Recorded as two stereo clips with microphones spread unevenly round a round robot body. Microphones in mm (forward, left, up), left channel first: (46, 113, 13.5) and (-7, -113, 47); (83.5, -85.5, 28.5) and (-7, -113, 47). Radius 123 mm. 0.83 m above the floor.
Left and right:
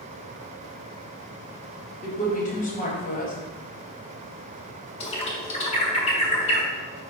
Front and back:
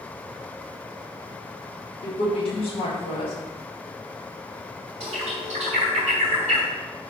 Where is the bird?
145° left, 0.7 m.